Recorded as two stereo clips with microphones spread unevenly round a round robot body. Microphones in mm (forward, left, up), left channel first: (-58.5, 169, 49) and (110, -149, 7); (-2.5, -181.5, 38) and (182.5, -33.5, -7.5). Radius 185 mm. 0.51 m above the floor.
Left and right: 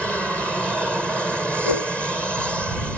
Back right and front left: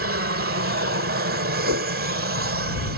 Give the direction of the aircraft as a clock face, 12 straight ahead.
11 o'clock.